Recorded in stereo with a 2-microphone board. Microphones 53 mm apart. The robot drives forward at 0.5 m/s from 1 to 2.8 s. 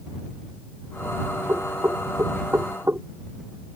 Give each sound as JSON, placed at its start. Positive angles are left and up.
{"t": 1.5, "sound": "knocking", "side_deg": -55}